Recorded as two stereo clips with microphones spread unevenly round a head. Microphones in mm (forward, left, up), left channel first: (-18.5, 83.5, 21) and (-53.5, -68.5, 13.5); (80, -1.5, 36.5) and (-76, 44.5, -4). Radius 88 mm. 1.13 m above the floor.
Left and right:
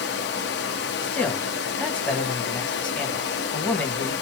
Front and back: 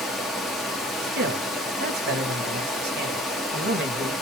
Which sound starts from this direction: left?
Running water, at 0.0 s.